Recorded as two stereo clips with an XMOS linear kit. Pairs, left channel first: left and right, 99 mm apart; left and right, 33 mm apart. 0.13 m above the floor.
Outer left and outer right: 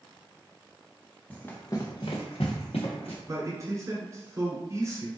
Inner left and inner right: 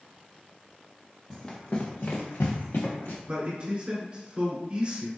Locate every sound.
1.3 s running footsteps: 15° left (ahead or behind), 1.0 m; by 3.2 s 80° left, 1.6 m
3.3 s a man speaking: 30° right (ahead or behind), 1.4 m